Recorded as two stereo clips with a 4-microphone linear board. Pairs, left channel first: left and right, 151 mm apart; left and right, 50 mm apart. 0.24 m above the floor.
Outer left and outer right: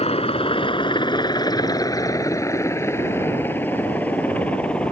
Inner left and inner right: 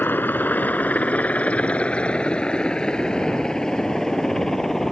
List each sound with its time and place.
0.0 s a helicopter: 40° left (ahead or behind); by 4.9 s 5° left (ahead or behind)